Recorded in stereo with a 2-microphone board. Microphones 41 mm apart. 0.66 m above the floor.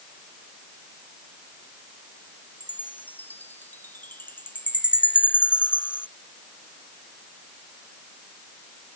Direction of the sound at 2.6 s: 50° left (ahead or behind).